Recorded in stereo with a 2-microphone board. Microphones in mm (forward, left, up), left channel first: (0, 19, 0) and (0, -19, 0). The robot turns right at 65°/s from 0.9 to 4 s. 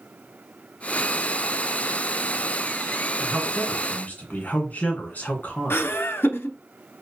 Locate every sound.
3.2 s a man speaking: 5° right, 2 m; by 6.0 s 45° left, 2 m
5.7 s laughter: 75° left (ahead or behind), 0.8 m